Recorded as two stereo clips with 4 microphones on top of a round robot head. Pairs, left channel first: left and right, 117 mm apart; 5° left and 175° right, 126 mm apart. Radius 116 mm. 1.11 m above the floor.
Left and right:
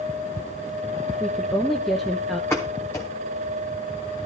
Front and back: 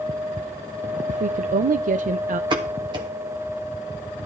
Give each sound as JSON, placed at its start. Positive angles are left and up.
{"t": 1.1, "sound": "a woman speaking", "azimuth_deg": 180, "distance_m": 0.5}
{"t": 2.5, "sound": "a pop", "azimuth_deg": 160, "distance_m": 0.8}